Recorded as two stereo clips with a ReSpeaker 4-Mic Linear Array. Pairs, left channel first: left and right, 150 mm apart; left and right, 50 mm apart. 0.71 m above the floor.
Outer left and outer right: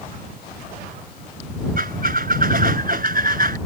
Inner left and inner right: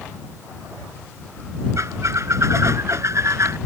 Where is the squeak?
70° right (ahead or behind).